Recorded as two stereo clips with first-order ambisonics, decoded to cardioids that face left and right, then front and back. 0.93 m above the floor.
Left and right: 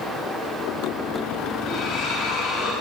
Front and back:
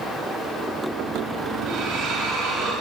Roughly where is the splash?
Behind left.